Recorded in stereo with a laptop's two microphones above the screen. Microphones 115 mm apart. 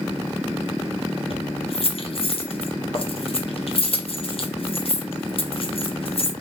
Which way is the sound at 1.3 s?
55° left (ahead or behind).